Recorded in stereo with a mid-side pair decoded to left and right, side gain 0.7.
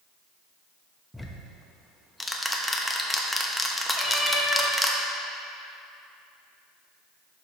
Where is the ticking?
5° left, 0.8 m.